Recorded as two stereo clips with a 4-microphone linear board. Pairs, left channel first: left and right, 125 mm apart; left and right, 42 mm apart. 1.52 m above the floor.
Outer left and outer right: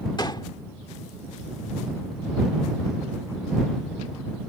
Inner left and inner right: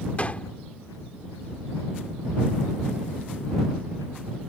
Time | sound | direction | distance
0.2 | a gunshot | 35° left (ahead or behind) | ?